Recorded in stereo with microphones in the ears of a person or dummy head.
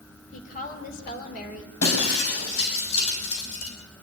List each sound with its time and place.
0.3 s a woman speaking: 45° left (ahead or behind), 3.5 m
1.8 s breaking glass: 85° left, 5.5 m